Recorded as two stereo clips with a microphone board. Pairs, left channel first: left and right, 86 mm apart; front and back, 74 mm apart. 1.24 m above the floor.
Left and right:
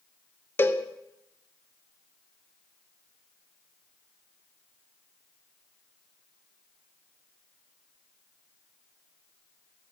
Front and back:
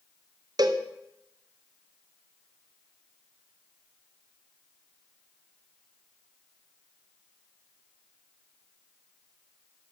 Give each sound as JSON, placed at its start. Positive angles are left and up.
{"t": 0.6, "sound": "a cowbell", "azimuth_deg": 155, "distance_m": 0.7}